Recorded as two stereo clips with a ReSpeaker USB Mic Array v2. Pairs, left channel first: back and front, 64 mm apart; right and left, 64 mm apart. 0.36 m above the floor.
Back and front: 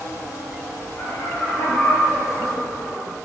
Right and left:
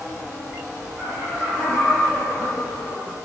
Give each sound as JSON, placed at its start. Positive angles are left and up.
{"t": 1.0, "sound": "laughter", "azimuth_deg": 155, "distance_m": 2.0}